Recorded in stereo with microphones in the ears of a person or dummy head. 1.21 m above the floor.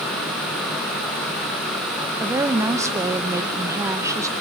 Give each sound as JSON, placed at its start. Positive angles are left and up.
{"t": 2.2, "sound": "a woman speaking", "side_deg": -20, "distance_m": 0.9}